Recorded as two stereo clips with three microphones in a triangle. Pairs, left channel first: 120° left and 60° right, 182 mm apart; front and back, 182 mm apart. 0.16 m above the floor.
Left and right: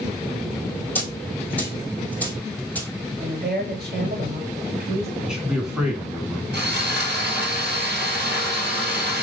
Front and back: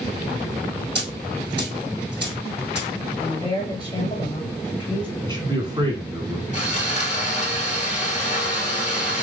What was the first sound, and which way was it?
A dropped coin, 160° right.